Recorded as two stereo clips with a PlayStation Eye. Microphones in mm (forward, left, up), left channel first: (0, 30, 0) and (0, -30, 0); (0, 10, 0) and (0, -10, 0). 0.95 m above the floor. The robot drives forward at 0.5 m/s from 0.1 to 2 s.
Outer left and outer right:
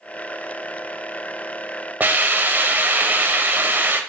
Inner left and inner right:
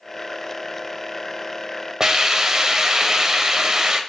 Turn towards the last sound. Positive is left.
turn(degrees=-35)  # may be behind; listen again after turning